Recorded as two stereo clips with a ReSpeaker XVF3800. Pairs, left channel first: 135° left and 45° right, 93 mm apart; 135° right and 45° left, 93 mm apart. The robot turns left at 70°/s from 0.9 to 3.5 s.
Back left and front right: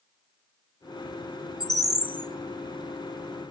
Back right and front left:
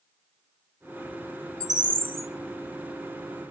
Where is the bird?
95° left, 1.5 m; by 2.3 s 45° left, 1.5 m.